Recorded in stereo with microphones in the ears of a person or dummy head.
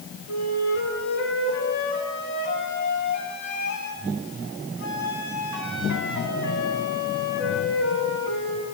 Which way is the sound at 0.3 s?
70° left (ahead or behind).